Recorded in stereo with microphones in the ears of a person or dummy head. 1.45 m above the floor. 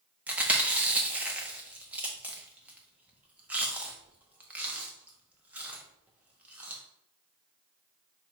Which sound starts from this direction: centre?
Chewing, at 0.3 s.